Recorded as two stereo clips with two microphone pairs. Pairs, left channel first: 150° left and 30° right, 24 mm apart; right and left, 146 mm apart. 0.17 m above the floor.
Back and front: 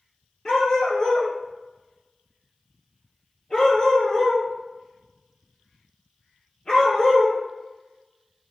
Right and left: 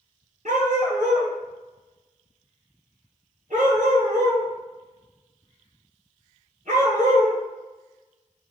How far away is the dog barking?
About 1.2 m.